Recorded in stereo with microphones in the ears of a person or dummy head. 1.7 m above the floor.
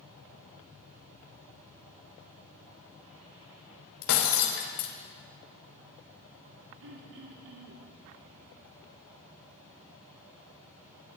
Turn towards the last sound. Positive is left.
turn(degrees=-60)  # may be behind; listen again after turning